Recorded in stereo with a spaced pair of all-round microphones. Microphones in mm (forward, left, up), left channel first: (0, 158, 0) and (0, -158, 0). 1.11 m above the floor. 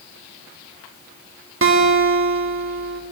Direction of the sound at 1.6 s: 40° right (ahead or behind).